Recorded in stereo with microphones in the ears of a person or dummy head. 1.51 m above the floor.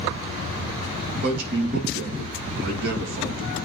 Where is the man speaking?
60° right (ahead or behind), 2.5 m.